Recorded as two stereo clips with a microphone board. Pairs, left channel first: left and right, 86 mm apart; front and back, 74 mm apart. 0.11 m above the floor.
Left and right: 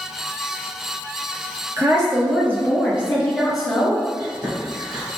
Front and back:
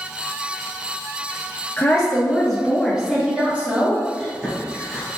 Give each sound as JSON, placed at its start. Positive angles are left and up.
{"t": 1.8, "sound": "a woman speaking", "azimuth_deg": -70, "distance_m": 1.7}
{"t": 4.2, "sound": "chewing", "azimuth_deg": -100, "distance_m": 1.9}